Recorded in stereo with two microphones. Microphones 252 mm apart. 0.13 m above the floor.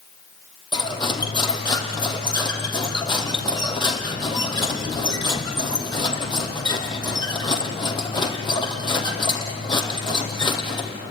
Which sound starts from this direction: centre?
Cutlery clinking, at 0.7 s.